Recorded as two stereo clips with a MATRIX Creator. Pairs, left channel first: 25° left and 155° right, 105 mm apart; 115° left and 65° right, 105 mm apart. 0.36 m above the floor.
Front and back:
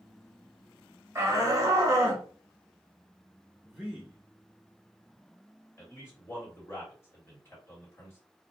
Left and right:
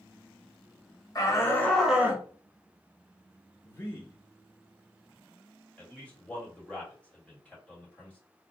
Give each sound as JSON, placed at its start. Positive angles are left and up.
{"t": 1.1, "sound": "a shout", "azimuth_deg": 150, "distance_m": 1.2}
{"t": 3.6, "sound": "a man speaking", "azimuth_deg": 125, "distance_m": 0.9}
{"t": 5.8, "sound": "a man speaking", "azimuth_deg": 55, "distance_m": 1.6}